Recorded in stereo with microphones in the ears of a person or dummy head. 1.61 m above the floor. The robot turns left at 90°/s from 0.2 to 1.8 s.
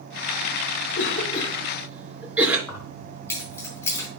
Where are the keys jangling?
20° left (ahead or behind), 5 m.